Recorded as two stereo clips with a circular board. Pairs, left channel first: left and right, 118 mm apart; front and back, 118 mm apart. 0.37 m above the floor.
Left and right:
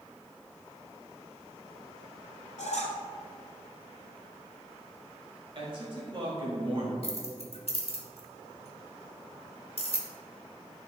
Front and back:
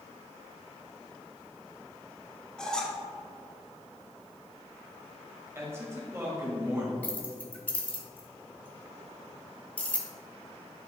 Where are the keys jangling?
75° left, 1.2 m.